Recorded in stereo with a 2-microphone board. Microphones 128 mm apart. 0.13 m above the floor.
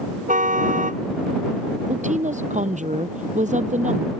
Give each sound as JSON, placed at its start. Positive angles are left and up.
{"t": 0.3, "sound": "a car horn", "side_deg": -80}
{"t": 1.9, "sound": "a woman speaking", "side_deg": -70}